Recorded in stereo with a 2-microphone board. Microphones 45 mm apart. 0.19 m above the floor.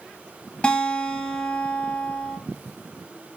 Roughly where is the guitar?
Left.